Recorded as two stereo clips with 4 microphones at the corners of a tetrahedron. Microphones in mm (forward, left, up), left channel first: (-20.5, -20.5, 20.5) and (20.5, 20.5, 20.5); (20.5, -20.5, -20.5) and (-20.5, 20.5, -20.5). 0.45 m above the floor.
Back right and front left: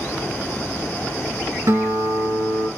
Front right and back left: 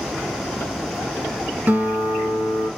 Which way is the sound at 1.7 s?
75° left.